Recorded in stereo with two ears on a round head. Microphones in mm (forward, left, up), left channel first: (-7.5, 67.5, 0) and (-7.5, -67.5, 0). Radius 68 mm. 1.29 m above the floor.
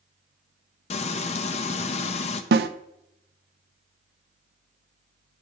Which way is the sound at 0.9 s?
45° left (ahead or behind).